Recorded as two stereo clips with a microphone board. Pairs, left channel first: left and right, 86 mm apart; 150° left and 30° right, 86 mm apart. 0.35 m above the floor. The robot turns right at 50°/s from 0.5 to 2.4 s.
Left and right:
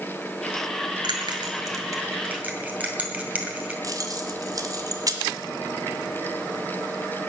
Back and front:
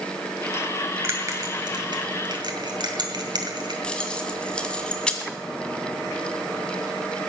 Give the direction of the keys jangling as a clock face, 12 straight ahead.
4 o'clock.